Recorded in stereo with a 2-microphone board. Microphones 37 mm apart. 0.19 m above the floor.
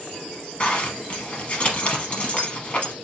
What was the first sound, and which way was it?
A zipper, 35° left (ahead or behind).